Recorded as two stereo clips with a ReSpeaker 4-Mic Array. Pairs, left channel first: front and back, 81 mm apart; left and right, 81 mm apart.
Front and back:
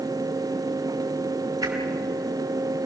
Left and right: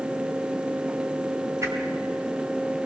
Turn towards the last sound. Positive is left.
turn(degrees=-145)